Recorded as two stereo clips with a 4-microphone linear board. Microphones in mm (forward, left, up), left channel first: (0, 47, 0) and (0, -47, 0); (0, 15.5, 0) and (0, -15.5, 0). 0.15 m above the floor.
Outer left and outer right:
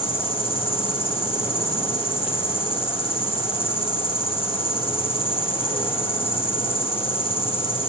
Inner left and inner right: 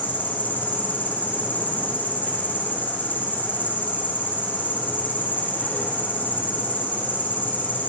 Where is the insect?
70° left (ahead or behind), 6.5 m.